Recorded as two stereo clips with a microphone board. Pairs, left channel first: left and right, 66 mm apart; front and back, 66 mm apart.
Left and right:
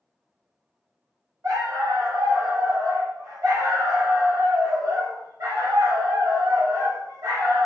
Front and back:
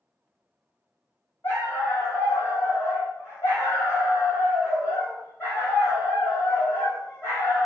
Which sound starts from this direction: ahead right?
A dog barking, at 1.4 s.